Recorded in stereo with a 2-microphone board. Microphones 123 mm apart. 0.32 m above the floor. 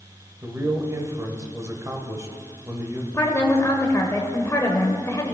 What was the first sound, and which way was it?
A man speaking, 25° right (ahead or behind).